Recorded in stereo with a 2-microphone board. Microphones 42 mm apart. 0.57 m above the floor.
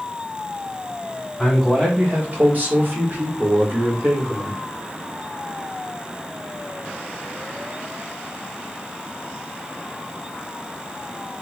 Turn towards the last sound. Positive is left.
turn(degrees=-50)  # may be behind; listen again after turning